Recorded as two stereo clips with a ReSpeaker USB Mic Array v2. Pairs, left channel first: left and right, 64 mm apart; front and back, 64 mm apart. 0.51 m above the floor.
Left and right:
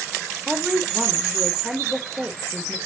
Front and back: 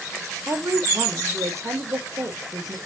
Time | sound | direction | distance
0.5 | a woman speaking | 165° right | 2 m